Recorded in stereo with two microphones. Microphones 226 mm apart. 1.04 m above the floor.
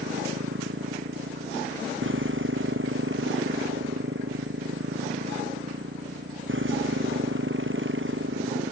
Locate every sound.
0.0 s a motorcycle: 60° right (ahead or behind)